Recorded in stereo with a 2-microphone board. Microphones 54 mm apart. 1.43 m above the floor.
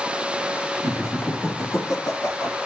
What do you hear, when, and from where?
0.8 s laughter: 65° left (ahead or behind), 3 m; by 2.6 s 85° left, 4.5 m